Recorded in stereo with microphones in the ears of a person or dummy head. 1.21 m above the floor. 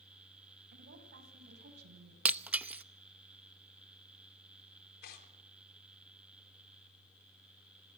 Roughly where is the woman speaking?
Right.